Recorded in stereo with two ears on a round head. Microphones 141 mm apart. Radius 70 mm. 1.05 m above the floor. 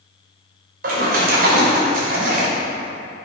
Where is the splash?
60° right (ahead or behind), 3.5 m.